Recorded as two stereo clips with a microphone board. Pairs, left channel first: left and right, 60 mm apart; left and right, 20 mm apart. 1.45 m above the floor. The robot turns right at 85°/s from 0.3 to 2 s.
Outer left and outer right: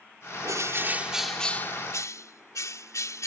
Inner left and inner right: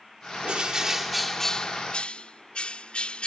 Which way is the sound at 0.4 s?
70° right.